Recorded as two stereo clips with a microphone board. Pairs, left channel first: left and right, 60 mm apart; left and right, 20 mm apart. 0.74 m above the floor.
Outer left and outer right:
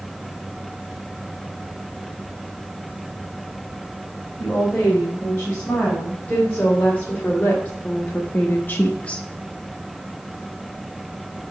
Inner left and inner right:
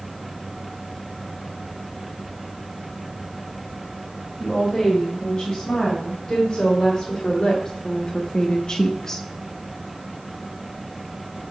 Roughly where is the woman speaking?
Left.